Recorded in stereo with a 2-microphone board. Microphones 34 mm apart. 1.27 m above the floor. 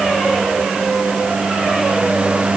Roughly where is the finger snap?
No finger snap in this recording.